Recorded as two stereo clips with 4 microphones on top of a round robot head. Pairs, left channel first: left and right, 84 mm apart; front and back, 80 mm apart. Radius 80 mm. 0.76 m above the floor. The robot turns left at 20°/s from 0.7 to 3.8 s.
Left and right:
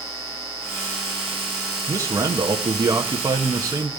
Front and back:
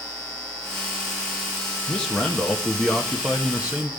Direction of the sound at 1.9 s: 70° right.